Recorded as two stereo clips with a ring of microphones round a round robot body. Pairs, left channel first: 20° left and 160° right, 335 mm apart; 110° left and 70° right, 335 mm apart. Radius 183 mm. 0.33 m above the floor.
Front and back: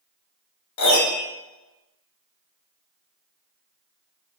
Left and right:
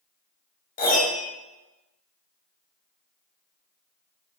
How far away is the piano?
About 1.5 m.